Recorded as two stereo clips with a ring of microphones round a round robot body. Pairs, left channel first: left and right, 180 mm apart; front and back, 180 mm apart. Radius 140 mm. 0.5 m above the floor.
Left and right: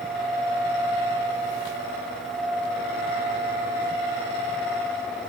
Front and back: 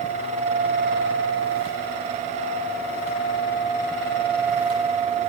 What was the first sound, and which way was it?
Only background noise.